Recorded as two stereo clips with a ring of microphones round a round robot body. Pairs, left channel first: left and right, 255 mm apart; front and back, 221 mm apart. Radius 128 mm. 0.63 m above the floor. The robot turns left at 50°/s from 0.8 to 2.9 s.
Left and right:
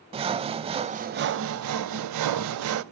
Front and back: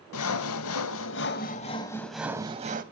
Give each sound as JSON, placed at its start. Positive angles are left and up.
{"t": 0.1, "sound": "sawing", "azimuth_deg": -20, "distance_m": 0.7}